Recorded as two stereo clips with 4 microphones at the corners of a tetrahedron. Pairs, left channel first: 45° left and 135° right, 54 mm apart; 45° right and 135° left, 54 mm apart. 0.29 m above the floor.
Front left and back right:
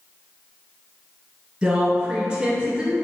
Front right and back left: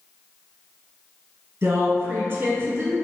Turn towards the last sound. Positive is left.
turn(degrees=165)